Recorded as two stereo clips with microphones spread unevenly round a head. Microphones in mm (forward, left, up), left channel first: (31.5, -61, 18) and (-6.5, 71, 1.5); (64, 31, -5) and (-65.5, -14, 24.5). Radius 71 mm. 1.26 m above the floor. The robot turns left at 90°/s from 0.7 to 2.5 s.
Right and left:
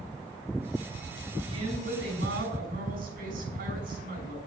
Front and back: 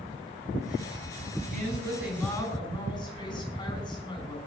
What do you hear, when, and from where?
1.5 s a woman speaking: 170° left, 6.5 m; by 4.4 s 80° left, 6.5 m